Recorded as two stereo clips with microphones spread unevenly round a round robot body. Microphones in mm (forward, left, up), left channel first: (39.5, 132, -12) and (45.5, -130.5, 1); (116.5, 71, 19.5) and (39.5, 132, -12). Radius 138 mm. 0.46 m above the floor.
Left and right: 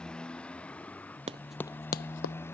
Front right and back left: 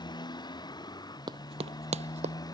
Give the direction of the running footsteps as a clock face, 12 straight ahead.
5 o'clock.